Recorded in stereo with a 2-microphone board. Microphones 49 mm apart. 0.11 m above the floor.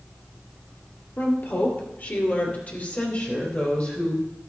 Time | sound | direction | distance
1.2 | a woman speaking | 50° left (ahead or behind) | 2.5 m